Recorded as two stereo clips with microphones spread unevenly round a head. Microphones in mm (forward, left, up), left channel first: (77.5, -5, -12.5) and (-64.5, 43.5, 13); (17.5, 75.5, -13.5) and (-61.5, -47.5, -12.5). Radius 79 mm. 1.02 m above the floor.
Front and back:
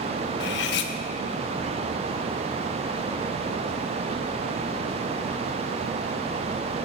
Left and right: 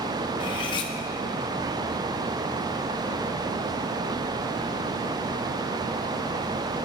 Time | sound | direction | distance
0.4 | cutlery clinking | 5° right | 0.8 m